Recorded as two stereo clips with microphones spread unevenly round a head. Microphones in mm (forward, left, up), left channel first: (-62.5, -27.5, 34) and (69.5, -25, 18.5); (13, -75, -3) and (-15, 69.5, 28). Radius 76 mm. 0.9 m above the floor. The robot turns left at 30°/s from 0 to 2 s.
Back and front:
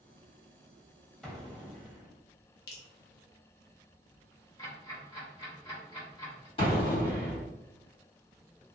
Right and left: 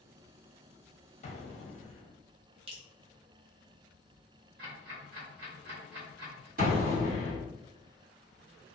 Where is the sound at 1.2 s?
90° right, 0.9 m; by 2.2 s 110° right, 0.9 m.